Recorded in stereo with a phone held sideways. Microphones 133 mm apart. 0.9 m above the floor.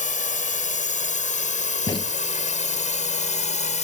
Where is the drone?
75° left (ahead or behind); by 3.8 s 65° left (ahead or behind).